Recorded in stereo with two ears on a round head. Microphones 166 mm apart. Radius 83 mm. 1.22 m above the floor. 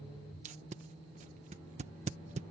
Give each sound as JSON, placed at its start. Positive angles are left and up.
{"t": 0.5, "sound": "tape being pulled", "side_deg": -40}